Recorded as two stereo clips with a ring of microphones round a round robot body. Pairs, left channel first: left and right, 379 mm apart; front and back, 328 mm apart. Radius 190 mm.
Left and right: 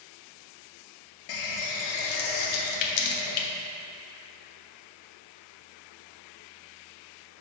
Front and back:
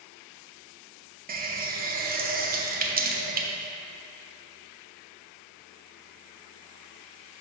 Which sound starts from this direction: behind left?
A running tap, at 1.3 s.